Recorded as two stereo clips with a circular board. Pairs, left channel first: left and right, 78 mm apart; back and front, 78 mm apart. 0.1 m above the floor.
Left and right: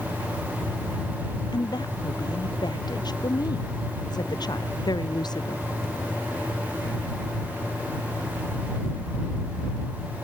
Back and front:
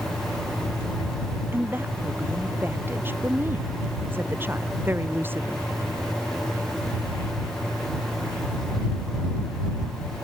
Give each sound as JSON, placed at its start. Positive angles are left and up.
{"t": 1.5, "sound": "a woman speaking", "azimuth_deg": 65}